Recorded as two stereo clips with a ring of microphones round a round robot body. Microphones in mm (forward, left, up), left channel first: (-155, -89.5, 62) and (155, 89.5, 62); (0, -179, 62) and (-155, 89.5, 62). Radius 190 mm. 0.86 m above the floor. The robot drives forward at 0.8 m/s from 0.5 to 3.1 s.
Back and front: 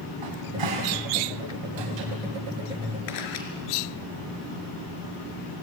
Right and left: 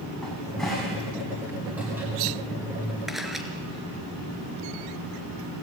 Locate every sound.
0.2 s a cupboard door: 30° left, 6 m; by 2.1 s 35° left, 5 m
3.1 s a camera shutter: 150° right, 3.5 m